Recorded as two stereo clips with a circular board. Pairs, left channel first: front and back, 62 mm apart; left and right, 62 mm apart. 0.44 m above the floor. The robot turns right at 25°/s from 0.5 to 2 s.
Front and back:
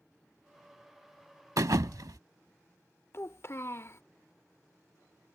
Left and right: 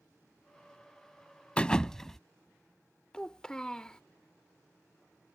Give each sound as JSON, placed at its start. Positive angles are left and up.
{"t": 1.6, "sound": "a thud", "azimuth_deg": 160}
{"t": 3.1, "sound": "a child speaking", "azimuth_deg": 15}